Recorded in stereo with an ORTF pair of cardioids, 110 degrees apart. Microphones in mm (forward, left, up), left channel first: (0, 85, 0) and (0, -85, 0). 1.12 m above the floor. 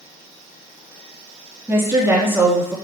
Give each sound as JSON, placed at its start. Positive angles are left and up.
{"t": 1.7, "sound": "a woman speaking", "azimuth_deg": -15, "distance_m": 2.0}